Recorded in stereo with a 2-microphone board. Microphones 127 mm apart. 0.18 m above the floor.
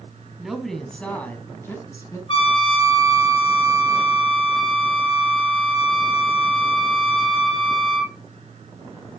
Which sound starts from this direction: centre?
A woman speaking, at 0.4 s.